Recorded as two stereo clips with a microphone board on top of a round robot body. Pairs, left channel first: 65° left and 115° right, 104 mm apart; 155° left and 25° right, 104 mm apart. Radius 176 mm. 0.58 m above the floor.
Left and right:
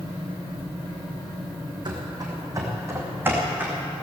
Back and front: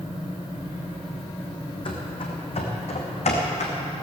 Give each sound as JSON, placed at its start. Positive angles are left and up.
{"t": 1.9, "sound": "running footsteps", "azimuth_deg": -160, "distance_m": 2.0}